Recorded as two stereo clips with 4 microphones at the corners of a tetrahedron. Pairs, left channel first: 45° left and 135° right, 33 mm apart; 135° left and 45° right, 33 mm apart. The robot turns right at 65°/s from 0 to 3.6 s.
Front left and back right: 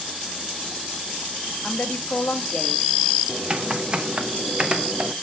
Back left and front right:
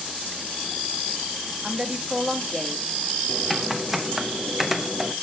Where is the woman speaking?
10° left, 1.0 m; by 2.9 s 90° left, 1.0 m.